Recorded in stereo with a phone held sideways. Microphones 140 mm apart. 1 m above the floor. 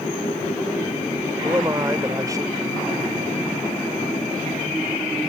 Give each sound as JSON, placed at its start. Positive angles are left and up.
{"t": 1.4, "sound": "a man speaking", "side_deg": -25}